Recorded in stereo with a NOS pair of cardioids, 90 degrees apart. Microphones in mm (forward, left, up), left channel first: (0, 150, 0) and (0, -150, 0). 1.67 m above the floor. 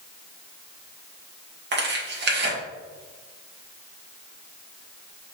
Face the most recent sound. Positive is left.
turn(degrees=-40)